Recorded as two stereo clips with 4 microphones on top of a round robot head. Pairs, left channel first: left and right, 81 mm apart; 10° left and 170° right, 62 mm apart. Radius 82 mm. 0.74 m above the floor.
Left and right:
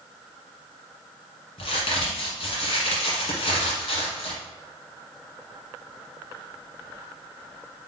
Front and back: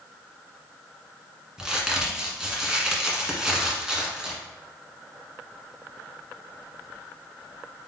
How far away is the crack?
About 1.4 m.